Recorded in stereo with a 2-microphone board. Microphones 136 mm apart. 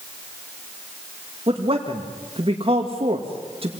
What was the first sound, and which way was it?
A man speaking, 50° right (ahead or behind).